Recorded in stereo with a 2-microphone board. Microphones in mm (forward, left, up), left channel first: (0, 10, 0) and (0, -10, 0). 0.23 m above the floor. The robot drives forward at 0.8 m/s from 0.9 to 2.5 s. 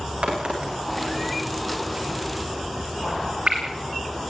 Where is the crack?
80° right, 9.5 m; by 3.6 s 75° right (ahead or behind), 10 m.